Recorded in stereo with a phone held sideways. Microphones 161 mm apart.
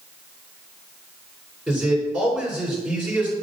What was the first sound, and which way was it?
A man speaking, 10° right (ahead or behind).